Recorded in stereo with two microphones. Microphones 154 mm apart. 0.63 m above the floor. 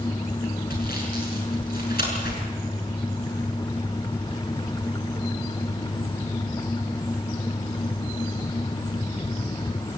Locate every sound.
0.7 s sawing: 80° left, 6.5 m